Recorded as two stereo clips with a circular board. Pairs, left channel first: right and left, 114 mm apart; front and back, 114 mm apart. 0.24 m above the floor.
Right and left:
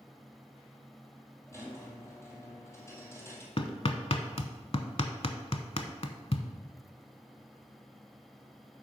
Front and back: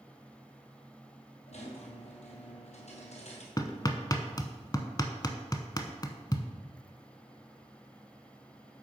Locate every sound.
1.5 s a squeak: 20° right, 1.8 m
3.6 s hammering: 55° right, 0.7 m